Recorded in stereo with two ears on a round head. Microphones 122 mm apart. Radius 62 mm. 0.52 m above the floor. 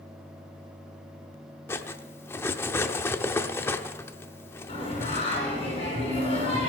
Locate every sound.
1.7 s cutlery clinking: 20° left (ahead or behind), 0.7 m
4.7 s singing: 45° left (ahead or behind), 6.5 m